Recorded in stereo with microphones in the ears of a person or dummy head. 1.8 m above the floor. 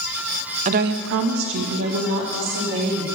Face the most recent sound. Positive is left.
turn(degrees=-45)  # may be behind; listen again after turning